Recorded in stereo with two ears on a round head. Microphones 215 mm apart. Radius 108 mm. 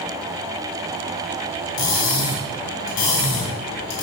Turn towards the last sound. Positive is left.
turn(degrees=50)  # may be behind; listen again after turning